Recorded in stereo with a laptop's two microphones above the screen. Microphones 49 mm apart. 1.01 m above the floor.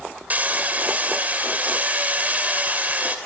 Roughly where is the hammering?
Right.